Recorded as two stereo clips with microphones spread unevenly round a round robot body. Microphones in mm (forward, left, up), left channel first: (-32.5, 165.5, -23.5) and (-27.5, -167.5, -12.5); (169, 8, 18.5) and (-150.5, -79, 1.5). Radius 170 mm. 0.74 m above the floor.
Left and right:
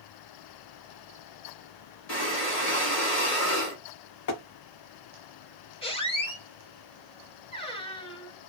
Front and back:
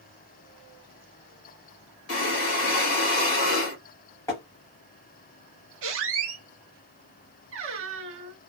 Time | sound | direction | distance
2.1 | breathing | 50° left | 1.6 m
4.3 | tapping | 90° left | 0.6 m
5.8 | a squeak | 160° left | 0.7 m